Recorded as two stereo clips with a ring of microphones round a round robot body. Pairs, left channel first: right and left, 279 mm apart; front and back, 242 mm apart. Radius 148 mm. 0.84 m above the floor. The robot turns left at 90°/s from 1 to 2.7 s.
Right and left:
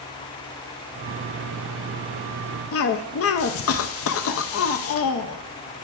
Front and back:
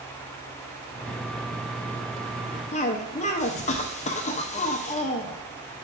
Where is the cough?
60° right, 0.6 m.